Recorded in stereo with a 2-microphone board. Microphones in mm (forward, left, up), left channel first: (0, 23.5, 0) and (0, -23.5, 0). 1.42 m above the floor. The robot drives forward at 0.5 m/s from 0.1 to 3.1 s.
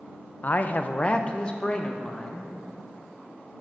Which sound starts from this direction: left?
A man speaking, at 0.4 s.